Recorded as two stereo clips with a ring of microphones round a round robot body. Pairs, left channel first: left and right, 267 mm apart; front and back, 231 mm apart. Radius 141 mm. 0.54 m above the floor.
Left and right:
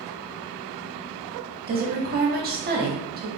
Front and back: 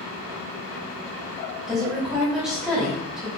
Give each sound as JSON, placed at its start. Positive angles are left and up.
{"t": 1.7, "sound": "a woman speaking", "azimuth_deg": -95, "distance_m": 0.9}